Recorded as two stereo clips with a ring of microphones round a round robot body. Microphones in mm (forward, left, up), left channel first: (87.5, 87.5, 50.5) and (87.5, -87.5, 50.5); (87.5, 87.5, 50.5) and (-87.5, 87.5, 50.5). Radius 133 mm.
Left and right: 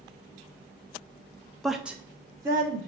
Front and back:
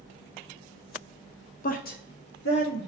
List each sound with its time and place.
1.6 s a woman speaking: straight ahead, 0.6 m; by 2.9 s 20° right, 1.2 m